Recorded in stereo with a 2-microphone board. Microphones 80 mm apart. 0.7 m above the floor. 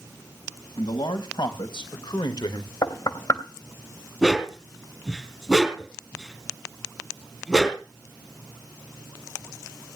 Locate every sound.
0.8 s a man speaking: 80° left, 4 m; by 2.7 s 70° left (ahead or behind), 1.4 m
2.8 s knocking: 50° left (ahead or behind), 3 m
4.2 s a dog barking: 5° right (ahead or behind), 3 m